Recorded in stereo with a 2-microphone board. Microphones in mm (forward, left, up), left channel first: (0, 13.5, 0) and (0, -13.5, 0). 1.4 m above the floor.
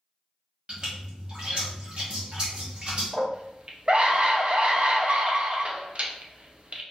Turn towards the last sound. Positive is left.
turn(degrees=-50)  # may be behind; listen again after turning